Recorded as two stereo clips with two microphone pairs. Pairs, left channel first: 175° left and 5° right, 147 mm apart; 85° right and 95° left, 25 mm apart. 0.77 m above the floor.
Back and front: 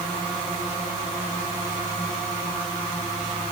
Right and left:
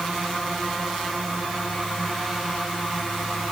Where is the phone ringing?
I don't hear a phone ringing.